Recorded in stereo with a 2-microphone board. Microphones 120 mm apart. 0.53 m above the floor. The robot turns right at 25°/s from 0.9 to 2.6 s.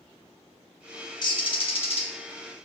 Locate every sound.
1.2 s a bird: 40° left (ahead or behind), 0.5 m; by 2.1 s 55° left (ahead or behind), 0.5 m